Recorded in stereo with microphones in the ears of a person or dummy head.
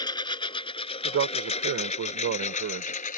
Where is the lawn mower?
30° left (ahead or behind); by 3.2 s 55° left (ahead or behind).